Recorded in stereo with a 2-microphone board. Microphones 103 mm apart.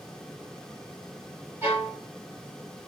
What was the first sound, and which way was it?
A violin, 25° right (ahead or behind).